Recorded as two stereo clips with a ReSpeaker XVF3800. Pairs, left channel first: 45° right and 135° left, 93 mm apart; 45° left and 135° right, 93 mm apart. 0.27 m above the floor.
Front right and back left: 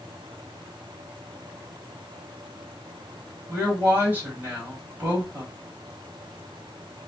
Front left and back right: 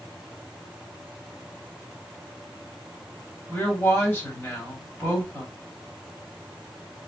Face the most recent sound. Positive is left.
turn(degrees=90)